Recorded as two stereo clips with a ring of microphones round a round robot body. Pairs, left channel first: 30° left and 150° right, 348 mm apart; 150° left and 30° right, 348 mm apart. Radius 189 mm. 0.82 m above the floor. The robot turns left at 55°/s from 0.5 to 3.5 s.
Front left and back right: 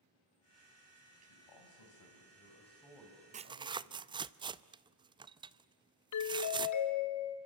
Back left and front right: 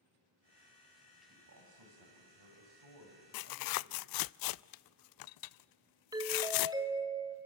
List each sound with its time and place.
1.3 s a man speaking: 30° left, 6.5 m; by 4.2 s 90° right, 6.5 m
3.3 s tearing paper: 145° left, 0.5 m; by 6.8 s 135° left, 0.5 m
6.1 s a doorbell: 50° left, 2.5 m